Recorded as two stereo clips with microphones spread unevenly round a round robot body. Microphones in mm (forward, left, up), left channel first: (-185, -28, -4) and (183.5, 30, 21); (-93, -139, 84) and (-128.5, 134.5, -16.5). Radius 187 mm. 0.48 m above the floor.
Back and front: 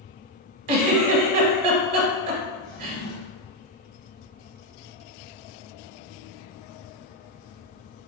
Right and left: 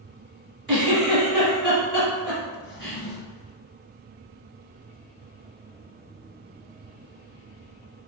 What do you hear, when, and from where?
0.7 s a giggle: 5° left, 1.0 m
2.6 s a drawer: 105° right, 1.4 m